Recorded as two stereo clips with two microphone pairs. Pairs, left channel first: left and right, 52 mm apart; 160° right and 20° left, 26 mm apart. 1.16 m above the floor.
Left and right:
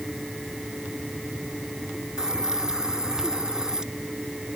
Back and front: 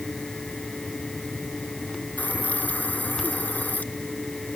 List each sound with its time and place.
2.2 s a hiss: 170° right